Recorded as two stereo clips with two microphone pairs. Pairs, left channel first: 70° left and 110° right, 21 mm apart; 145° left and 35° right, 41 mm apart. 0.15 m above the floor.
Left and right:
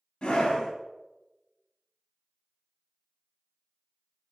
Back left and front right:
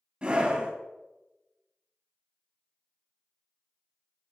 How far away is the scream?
About 3 m.